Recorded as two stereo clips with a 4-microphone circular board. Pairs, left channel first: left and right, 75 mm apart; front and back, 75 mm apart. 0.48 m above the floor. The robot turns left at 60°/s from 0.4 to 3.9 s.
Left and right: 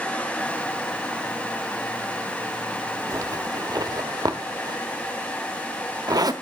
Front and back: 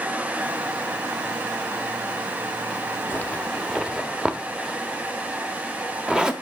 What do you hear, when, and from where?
3.1 s a zipper: 55° right, 0.9 m; by 6.3 s 105° right, 0.9 m